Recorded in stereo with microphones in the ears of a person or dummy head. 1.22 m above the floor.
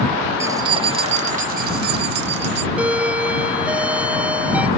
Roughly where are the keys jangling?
Centre.